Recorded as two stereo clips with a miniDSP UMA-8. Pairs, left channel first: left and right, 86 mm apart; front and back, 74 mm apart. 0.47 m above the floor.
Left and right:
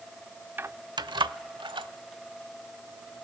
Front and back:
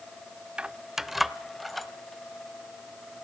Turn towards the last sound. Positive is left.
turn(degrees=-90)